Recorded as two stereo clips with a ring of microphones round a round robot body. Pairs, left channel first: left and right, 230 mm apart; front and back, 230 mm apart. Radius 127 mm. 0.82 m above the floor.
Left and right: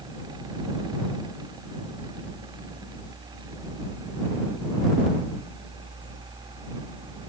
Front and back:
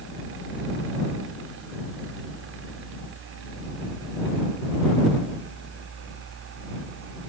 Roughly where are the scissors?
No scissors in this recording.